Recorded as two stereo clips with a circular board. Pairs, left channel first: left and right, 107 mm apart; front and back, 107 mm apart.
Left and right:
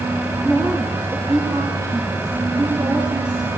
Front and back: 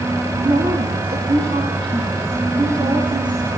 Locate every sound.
0.4 s a woman speaking: 170° right, 3.5 m; by 3.5 s 135° right, 6 m